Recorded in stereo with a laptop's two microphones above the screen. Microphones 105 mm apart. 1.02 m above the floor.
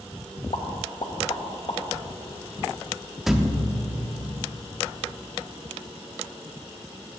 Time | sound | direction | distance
0.5 | a pop | 55° left (ahead or behind) | 1.1 m
3.3 | a thud | 5° right (ahead or behind) | 0.5 m